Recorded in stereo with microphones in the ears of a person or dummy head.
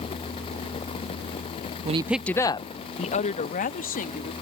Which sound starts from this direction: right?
A woman speaking, at 1.9 s.